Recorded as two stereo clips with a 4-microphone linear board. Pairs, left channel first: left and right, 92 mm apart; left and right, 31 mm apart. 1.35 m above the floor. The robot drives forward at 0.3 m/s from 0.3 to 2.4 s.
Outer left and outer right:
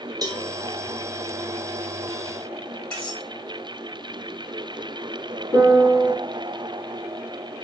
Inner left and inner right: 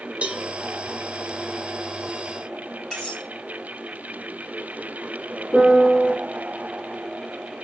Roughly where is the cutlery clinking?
Left.